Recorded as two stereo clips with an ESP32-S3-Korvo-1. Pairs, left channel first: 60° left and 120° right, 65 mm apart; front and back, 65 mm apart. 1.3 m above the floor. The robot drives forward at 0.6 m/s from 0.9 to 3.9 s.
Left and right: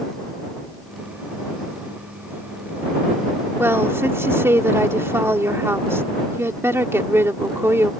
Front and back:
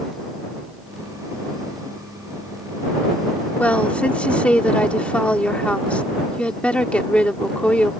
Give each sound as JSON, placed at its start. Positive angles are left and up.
{"t": 3.6, "sound": "a woman speaking", "azimuth_deg": -70}